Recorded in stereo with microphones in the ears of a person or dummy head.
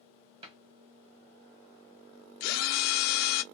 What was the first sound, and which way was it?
A cupboard door, 35° right (ahead or behind).